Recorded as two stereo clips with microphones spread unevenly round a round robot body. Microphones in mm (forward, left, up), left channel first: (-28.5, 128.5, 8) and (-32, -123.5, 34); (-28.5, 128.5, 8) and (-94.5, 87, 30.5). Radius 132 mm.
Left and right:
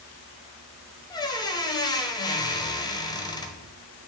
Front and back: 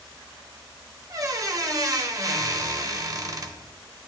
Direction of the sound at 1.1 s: 160° left.